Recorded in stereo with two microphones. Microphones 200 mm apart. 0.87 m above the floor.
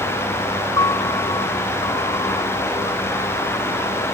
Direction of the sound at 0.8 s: 20° left (ahead or behind).